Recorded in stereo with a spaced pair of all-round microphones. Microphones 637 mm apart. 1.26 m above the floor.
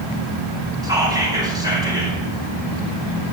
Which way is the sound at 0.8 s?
5° right (ahead or behind).